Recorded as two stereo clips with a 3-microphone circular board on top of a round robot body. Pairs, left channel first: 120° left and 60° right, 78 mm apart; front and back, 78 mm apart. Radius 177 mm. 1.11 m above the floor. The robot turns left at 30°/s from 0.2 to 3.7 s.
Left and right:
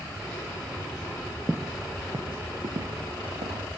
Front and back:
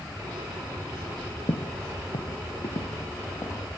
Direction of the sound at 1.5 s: 25° left.